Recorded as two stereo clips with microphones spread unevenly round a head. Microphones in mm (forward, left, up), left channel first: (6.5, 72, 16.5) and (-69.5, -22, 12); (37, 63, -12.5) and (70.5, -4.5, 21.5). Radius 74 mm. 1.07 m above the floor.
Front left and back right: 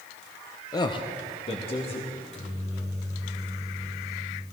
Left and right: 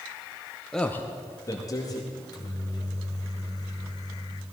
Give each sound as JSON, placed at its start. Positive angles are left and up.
{"t": 0.7, "sound": "a man speaking", "azimuth_deg": 85, "distance_m": 0.7}
{"t": 2.1, "sound": "a microwave", "azimuth_deg": 80, "distance_m": 3.5}